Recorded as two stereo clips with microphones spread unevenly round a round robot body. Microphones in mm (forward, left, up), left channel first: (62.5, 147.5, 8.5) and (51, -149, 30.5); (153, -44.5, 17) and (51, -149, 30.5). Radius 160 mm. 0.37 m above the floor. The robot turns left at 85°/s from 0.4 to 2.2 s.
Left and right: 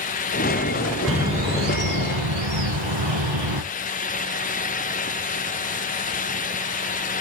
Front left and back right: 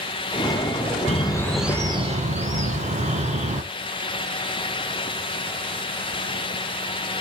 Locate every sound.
1.1 s a bird: straight ahead, 2 m; by 3.6 s 95° right, 2 m